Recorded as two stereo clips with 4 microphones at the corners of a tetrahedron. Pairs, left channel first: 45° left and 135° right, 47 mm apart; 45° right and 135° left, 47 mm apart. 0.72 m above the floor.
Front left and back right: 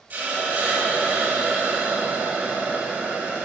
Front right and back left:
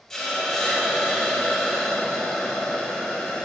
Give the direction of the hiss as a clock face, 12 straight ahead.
4 o'clock.